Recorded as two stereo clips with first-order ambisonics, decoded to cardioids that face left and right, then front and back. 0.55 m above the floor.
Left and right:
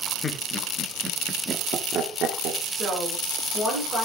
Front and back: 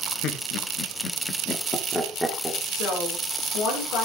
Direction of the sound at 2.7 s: 30° right.